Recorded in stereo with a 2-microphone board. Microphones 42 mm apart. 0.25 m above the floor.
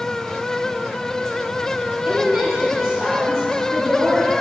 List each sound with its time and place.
2.0 s a woman speaking: 5° right (ahead or behind), 5.5 m